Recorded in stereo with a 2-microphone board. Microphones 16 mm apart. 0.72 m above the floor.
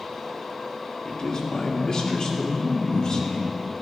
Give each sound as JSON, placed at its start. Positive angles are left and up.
{"t": 1.1, "sound": "a man speaking", "side_deg": 45, "distance_m": 1.8}